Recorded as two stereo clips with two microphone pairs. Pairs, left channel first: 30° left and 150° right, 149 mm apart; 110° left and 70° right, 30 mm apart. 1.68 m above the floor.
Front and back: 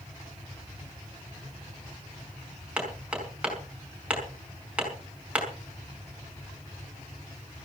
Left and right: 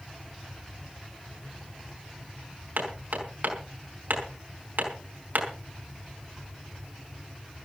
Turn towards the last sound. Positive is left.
turn(degrees=-70)